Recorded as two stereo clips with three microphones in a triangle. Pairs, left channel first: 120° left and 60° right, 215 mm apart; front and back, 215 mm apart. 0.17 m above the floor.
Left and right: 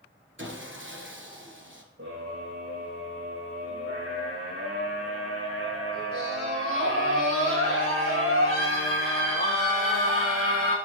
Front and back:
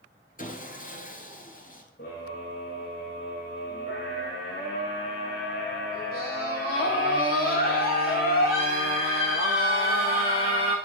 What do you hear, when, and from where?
0.4 s sawing: 45° right, 2 m
2.0 s a scream: 45° right, 9.5 m